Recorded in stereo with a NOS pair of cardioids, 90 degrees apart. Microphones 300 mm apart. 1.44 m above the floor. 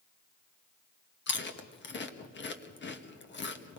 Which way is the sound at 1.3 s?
35° left.